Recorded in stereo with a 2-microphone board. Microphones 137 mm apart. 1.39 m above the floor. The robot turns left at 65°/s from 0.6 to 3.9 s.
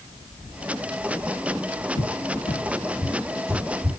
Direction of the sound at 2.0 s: 75° left (ahead or behind).